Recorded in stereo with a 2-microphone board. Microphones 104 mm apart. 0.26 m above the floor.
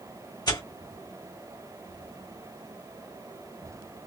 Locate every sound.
0.5 s tearing paper: 40° left (ahead or behind), 2 m